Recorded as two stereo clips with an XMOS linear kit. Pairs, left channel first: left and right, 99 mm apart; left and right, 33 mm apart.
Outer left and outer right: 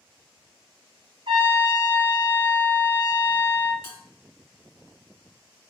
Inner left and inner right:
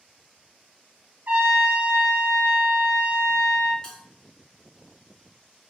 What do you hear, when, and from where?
1.3 s a trumpet: 60° right (ahead or behind), 1.2 m
3.8 s a bell: 20° left (ahead or behind), 1.6 m